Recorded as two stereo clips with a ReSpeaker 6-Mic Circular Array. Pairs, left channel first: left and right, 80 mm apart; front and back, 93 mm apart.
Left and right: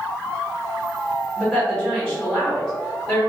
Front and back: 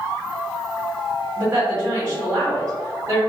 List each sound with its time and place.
1.4 s a woman speaking: 175° right, 1.2 m